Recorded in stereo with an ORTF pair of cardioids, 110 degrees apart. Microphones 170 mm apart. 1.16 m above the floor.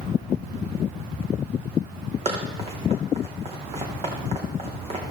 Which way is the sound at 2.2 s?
35° right.